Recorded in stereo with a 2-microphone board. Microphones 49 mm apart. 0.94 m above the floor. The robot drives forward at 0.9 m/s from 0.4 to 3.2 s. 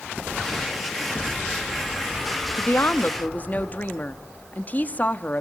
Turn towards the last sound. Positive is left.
turn(degrees=35)  # may be behind; listen again after turning